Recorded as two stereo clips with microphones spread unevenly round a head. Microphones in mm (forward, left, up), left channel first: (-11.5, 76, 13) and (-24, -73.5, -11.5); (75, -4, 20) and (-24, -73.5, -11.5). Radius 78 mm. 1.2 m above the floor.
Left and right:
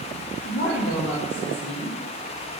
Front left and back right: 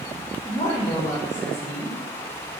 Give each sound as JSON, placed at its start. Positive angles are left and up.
{"t": 0.4, "sound": "a woman speaking", "azimuth_deg": 95, "distance_m": 1.3}